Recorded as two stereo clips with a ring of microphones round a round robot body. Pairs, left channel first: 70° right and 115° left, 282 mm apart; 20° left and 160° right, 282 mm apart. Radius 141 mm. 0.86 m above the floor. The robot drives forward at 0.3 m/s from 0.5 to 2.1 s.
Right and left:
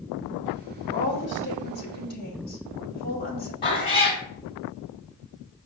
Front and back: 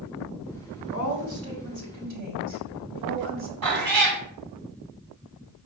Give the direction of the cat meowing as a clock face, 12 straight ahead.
5 o'clock.